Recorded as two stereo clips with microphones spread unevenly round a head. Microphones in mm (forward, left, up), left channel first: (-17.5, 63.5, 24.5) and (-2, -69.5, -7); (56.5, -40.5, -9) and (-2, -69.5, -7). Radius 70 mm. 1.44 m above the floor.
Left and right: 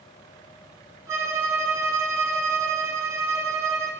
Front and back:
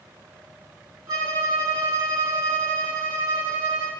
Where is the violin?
160° right, 2 m.